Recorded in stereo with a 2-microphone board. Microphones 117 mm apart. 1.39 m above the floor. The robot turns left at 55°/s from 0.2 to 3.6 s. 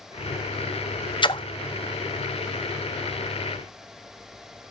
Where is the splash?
45° left (ahead or behind), 0.6 m; by 1.4 s 40° left (ahead or behind), 0.6 m.